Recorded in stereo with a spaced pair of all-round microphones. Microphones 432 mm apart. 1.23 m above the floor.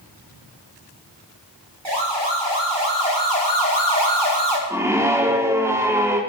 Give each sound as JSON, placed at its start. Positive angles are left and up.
{"t": 1.9, "sound": "a siren", "side_deg": -75, "distance_m": 6.5}
{"t": 4.7, "sound": "a scream", "side_deg": -5, "distance_m": 3.5}